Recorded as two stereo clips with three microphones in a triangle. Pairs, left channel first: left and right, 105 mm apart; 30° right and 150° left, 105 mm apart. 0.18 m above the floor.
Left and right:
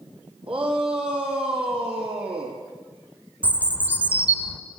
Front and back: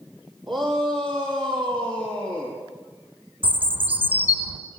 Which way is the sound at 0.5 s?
115° right.